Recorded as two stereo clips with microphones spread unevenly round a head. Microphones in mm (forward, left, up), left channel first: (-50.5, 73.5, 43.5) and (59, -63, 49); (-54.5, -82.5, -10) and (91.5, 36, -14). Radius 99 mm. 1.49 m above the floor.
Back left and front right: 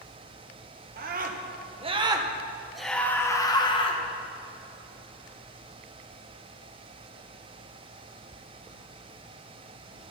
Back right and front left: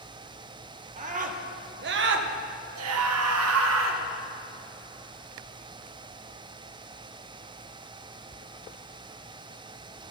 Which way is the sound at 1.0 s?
15° right.